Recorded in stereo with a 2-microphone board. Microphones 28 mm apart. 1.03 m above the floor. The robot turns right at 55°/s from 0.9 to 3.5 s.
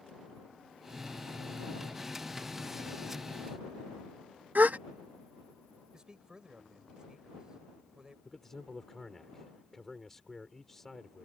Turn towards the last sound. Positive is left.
turn(degrees=10)  # may be behind; listen again after turning